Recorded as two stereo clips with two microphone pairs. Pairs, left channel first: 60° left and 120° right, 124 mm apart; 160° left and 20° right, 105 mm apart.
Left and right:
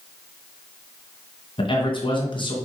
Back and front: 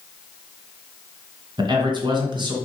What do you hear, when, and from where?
1.6 s a man speaking: 15° left, 2.5 m